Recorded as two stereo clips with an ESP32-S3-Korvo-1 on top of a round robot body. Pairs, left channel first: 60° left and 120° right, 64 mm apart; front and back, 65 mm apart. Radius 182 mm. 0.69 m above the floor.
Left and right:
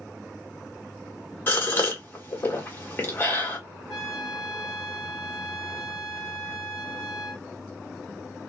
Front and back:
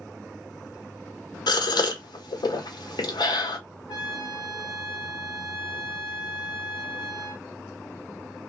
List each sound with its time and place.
1.5 s a gasp: straight ahead, 0.9 m
3.9 s a trumpet: 30° right, 1.0 m